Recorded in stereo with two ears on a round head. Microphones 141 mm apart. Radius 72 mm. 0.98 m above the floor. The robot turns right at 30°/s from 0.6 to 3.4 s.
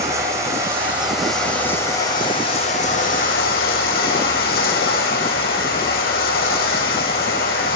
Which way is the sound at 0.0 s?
20° right.